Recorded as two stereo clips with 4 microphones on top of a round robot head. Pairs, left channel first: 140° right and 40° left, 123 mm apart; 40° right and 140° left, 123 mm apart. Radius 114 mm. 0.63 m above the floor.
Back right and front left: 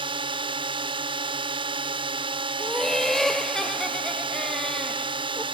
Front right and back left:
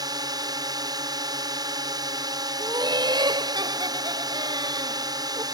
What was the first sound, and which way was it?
A drone, 85° left.